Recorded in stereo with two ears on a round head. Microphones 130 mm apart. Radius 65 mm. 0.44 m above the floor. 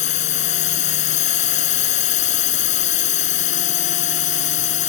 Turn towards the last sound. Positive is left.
turn(degrees=55)  # may be behind; listen again after turning